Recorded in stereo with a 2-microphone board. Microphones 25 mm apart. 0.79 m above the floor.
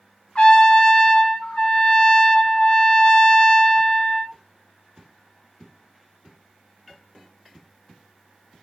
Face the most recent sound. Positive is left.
turn(degrees=50)  # may be behind; listen again after turning